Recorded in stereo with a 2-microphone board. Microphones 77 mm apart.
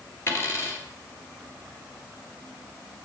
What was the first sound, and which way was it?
A dropped coin, 35° left (ahead or behind).